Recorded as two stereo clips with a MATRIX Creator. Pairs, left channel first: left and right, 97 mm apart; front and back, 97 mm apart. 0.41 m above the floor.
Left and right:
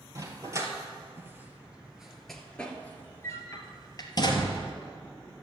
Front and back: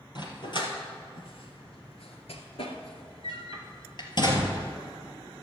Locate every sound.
0.1 s a dog barking: 40° right, 2 m; by 4.7 s 50° left, 2 m